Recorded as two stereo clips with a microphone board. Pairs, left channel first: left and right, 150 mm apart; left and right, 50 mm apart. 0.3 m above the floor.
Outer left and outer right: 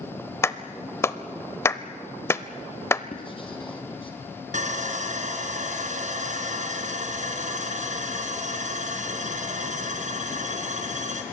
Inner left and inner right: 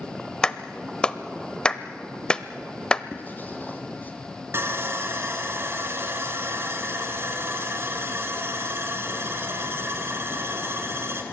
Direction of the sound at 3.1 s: 35° left (ahead or behind).